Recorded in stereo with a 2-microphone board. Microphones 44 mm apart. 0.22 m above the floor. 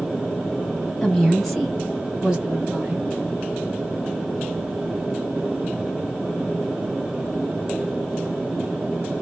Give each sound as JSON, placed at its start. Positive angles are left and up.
{"t": 1.0, "sound": "a woman speaking", "side_deg": 10, "distance_m": 1.4}